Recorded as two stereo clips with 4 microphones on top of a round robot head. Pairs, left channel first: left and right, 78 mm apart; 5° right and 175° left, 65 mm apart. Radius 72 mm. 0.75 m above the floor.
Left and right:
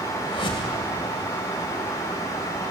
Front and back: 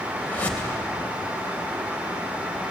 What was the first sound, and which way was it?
A whoosh, 65° left.